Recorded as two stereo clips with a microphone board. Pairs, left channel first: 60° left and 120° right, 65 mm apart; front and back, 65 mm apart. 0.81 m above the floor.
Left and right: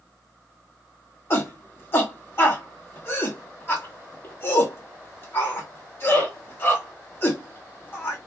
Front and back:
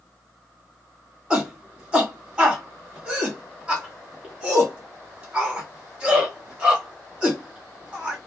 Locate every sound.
1.3 s a shout: 105° left, 1.4 m